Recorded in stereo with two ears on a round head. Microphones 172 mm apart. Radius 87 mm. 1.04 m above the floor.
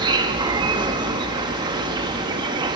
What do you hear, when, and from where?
0.0 s an insect: 25° right (ahead or behind), 1.1 m